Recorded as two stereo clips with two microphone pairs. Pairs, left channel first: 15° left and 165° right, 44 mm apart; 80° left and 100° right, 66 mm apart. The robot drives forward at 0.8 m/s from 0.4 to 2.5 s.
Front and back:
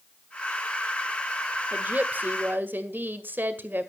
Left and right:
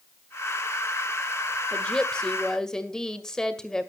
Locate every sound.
1.7 s a woman speaking: 155° left, 1.3 m; by 3.9 s 160° left, 1.9 m